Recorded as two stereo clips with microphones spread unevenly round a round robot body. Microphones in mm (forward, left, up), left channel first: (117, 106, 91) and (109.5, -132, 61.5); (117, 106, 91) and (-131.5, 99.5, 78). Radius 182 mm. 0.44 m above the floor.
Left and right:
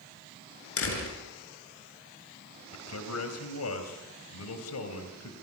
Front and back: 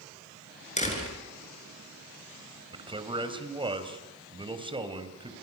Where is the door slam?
65° left, 6 m.